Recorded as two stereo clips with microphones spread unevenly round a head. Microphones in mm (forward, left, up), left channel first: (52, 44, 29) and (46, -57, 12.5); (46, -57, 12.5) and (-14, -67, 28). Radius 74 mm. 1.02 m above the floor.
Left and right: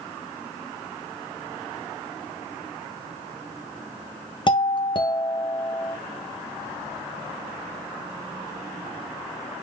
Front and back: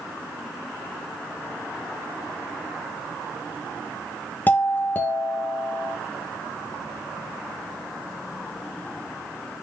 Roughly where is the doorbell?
Ahead left.